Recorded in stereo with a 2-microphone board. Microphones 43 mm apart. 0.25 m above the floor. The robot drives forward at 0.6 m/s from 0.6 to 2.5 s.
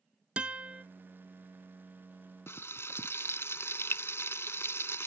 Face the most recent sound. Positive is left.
turn(degrees=70)  # may be behind; listen again after turning